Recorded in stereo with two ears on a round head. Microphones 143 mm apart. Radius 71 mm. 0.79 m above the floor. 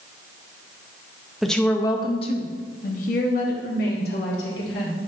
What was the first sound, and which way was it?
A woman speaking, centre (ahead or behind).